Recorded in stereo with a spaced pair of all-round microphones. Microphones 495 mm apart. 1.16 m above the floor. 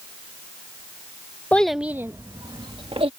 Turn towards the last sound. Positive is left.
turn(degrees=-10)  # may be behind; listen again after turning